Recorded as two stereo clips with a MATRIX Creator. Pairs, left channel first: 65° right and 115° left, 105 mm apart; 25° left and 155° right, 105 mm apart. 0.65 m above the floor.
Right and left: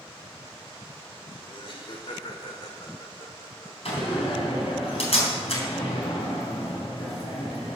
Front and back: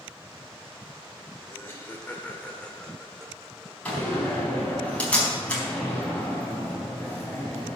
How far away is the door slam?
About 4 m.